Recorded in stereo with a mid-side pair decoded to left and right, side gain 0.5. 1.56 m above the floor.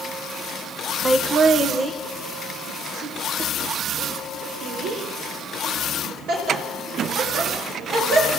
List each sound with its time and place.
1.1 s laughter: 25° right, 1.1 m; by 8.3 s 75° right, 11.5 m